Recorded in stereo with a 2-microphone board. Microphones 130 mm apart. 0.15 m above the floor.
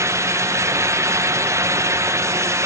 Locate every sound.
Only background noise.